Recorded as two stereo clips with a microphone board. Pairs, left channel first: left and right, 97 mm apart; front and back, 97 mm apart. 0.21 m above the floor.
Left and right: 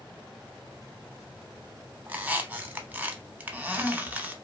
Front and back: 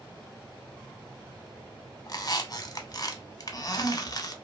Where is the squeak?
25° right, 0.5 m.